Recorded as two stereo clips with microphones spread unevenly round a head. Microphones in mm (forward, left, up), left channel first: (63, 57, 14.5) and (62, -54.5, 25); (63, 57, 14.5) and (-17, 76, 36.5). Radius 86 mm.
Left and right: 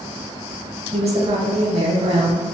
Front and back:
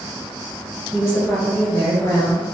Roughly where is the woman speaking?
Right.